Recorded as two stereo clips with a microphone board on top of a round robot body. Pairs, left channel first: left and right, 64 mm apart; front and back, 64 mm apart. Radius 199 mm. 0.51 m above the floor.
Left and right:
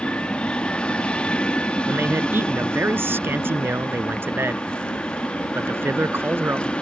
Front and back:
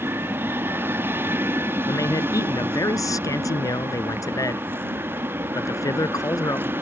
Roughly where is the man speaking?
Ahead right.